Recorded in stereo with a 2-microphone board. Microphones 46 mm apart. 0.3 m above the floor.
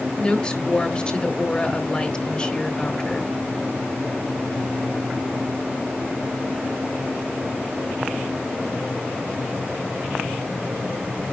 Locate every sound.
0.2 s a woman speaking: 20° left (ahead or behind), 1.5 m